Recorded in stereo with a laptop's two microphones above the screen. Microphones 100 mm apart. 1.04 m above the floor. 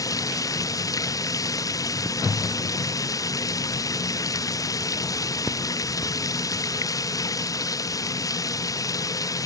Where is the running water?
35° left (ahead or behind).